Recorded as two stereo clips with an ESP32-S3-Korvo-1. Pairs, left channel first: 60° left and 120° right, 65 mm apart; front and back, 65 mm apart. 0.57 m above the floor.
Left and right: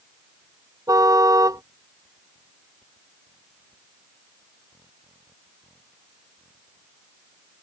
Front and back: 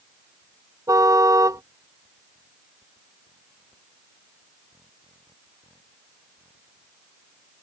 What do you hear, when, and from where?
0.9 s a car horn: 150° right